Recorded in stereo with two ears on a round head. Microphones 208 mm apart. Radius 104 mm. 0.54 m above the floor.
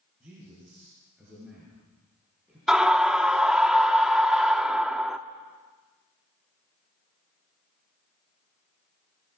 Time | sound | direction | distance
0.2 | a man speaking | 5° right (ahead or behind) | 9.5 m
2.7 | a scream | 5° right (ahead or behind) | 0.8 m